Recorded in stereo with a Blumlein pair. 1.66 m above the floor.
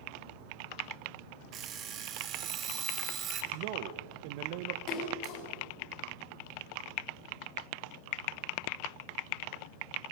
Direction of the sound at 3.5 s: 45° right.